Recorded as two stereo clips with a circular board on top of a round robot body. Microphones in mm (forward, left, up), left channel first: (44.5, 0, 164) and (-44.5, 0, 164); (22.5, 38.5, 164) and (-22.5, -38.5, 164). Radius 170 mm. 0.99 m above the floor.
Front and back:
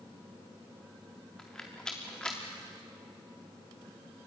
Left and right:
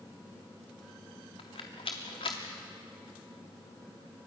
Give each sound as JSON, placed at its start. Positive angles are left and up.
{"t": 1.4, "sound": "a rattle", "azimuth_deg": 80, "distance_m": 0.6}